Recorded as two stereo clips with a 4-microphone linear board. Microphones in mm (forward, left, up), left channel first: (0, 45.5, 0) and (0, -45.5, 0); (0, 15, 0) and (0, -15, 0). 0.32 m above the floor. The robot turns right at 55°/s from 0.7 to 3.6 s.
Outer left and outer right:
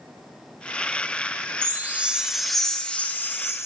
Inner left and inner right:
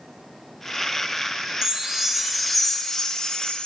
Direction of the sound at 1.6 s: 45° right.